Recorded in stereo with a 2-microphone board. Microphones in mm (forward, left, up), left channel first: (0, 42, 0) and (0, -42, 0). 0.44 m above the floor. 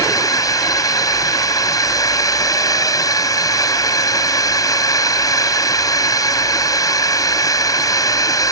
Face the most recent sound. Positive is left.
turn(degrees=45)  # may be behind; listen again after turning